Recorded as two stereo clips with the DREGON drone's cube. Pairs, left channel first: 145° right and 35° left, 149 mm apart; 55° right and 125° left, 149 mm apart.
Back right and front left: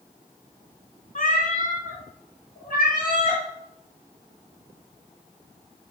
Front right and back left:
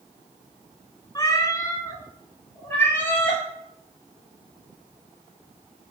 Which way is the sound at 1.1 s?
120° right.